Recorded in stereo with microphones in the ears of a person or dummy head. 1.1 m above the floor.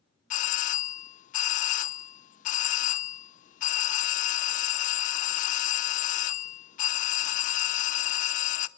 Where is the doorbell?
40° left (ahead or behind), 0.7 m.